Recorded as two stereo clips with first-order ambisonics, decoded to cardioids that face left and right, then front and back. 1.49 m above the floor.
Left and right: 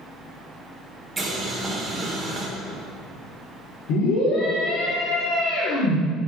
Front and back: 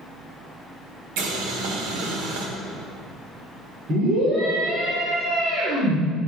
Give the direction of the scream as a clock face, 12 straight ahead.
8 o'clock.